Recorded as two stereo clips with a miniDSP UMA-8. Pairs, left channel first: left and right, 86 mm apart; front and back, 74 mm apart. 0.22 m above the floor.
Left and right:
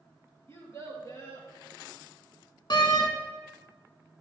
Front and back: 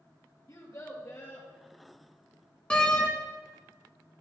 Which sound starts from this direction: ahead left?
A child speaking, at 0.5 s.